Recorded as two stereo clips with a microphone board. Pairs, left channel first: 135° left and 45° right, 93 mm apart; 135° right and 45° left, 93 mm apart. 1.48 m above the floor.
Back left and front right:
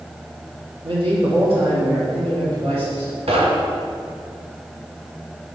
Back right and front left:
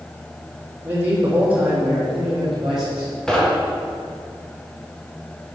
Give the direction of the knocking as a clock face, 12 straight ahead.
2 o'clock.